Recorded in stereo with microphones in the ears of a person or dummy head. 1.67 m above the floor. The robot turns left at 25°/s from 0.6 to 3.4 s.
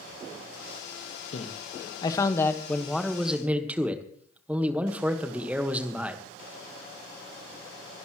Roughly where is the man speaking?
Ahead left.